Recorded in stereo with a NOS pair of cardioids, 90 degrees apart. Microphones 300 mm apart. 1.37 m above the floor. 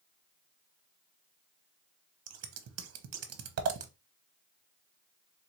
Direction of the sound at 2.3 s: 55° right.